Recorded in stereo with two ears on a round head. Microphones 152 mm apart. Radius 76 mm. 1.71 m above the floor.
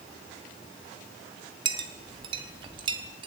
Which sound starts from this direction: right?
A clink, at 1.6 s.